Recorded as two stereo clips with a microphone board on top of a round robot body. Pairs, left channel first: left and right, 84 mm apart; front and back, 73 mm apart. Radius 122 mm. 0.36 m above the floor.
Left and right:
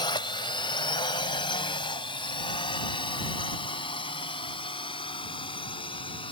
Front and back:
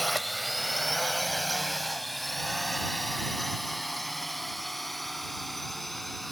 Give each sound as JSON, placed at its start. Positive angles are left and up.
{"t": 0.0, "sound": "a drone", "azimuth_deg": 90}